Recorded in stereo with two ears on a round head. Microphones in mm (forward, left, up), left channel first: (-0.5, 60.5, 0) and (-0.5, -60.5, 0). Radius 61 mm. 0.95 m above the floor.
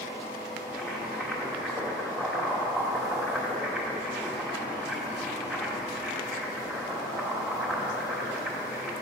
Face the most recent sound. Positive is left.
turn(degrees=0)  # may be behind; listen again after turning